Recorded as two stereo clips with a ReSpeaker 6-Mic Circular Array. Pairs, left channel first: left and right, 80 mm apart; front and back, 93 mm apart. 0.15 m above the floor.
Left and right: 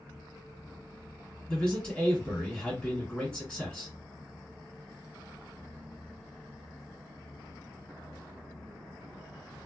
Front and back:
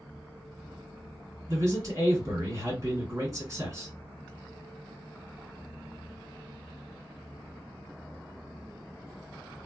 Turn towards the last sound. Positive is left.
turn(degrees=160)